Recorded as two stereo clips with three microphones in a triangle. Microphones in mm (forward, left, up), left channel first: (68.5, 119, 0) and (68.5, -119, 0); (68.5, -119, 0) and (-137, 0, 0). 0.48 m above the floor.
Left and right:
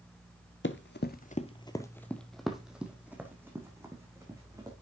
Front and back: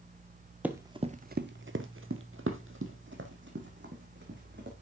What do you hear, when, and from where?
0.6 s running footsteps: 70° left, 0.7 m; by 4.7 s 165° right, 2.5 m